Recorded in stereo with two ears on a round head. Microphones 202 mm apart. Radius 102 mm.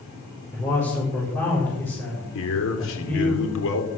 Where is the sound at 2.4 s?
65° left (ahead or behind), 3.5 m.